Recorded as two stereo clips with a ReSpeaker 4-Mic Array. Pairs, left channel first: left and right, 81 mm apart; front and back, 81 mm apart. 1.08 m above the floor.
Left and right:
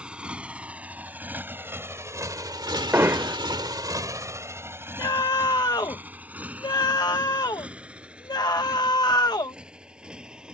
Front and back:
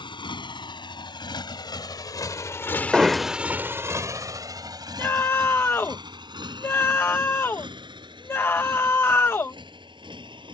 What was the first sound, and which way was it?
A motorcycle, 10° right.